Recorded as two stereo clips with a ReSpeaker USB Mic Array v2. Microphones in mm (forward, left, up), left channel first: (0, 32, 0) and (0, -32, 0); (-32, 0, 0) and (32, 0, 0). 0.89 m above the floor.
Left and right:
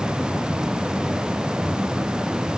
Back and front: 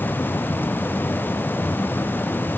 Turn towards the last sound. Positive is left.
No sound to turn to.